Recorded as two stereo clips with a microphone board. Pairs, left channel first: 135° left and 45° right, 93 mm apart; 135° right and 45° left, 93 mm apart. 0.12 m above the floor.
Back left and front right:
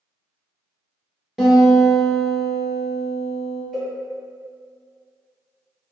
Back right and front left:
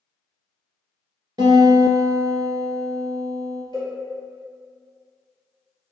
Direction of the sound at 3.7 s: 140° right.